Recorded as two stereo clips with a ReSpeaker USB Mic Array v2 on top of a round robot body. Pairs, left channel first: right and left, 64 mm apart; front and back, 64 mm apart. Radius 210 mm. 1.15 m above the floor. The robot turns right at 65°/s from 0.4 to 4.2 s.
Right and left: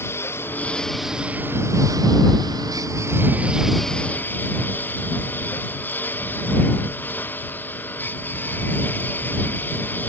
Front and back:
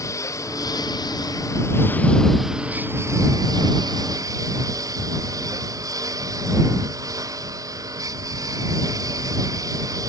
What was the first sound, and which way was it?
A lawn mower, 40° right.